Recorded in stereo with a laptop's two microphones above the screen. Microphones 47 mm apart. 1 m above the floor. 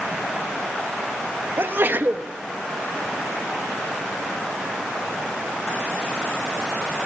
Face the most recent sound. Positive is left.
turn(degrees=-45)  # may be behind; listen again after turning